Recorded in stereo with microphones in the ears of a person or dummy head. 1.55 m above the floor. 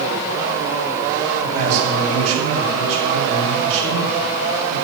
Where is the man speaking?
40° right (ahead or behind), 2.5 m.